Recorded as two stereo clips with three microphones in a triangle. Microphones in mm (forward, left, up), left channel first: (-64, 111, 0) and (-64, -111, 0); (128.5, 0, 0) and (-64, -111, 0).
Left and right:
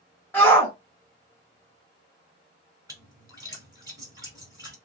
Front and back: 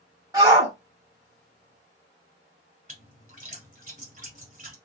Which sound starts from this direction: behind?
A shout, at 0.3 s.